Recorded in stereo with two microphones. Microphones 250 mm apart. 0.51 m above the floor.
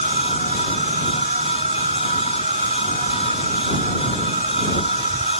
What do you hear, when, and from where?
0.0 s an insect: 30° right (ahead or behind)